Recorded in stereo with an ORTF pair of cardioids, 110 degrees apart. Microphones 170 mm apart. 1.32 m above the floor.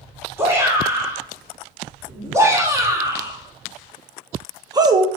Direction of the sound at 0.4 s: 15° right.